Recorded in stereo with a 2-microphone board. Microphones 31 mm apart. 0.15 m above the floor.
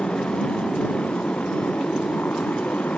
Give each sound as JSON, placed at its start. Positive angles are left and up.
{"t": 0.0, "sound": "a motorcycle", "side_deg": 45}